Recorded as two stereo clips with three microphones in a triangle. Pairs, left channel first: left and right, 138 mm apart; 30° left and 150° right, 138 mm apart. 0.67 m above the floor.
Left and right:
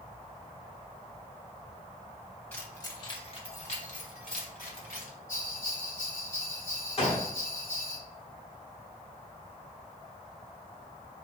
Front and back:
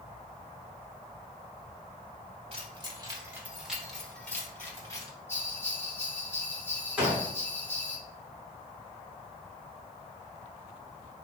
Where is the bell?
100° left, 1.9 m.